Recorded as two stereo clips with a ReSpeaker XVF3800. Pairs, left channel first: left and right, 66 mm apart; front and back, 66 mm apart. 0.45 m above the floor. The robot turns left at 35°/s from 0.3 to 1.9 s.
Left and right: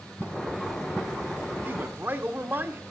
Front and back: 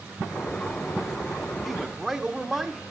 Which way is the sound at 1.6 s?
90° right.